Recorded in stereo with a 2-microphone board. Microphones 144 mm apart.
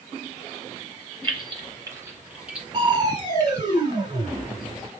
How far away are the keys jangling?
About 1.7 m.